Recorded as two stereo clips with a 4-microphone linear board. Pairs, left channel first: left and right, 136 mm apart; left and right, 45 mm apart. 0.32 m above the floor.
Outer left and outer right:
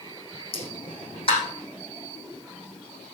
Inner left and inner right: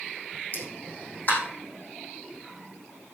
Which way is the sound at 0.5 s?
45° left (ahead or behind).